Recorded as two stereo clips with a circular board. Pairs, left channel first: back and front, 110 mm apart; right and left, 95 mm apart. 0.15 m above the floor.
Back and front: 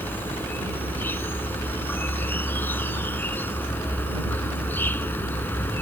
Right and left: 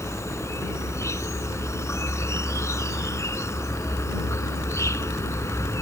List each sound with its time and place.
0.0 s an insect: 120° right